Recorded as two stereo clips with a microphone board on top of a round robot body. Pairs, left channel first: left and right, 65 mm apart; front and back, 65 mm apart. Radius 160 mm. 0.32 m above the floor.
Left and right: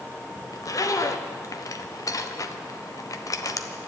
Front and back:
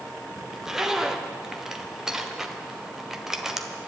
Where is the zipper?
100° left, 1.2 m.